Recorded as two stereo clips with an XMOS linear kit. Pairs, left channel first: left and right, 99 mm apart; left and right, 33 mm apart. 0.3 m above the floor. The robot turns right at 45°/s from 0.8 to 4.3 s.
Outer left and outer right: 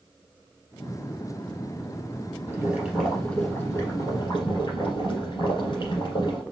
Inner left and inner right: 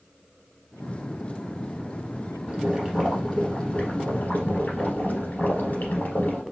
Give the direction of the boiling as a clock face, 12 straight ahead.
1 o'clock.